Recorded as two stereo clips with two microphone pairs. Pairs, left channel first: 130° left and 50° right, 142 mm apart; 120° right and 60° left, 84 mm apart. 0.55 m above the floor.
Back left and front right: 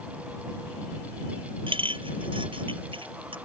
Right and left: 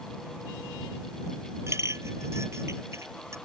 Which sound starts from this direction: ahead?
A clink, at 1.7 s.